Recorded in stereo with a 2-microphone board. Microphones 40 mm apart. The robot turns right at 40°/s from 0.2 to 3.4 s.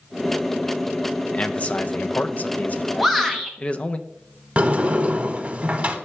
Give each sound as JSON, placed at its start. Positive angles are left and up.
{"t": 1.3, "sound": "a man speaking", "azimuth_deg": 50, "distance_m": 0.5}
{"t": 3.0, "sound": "a shout", "side_deg": 0, "distance_m": 0.8}
{"t": 4.6, "sound": "a sliding door", "side_deg": -35, "distance_m": 0.9}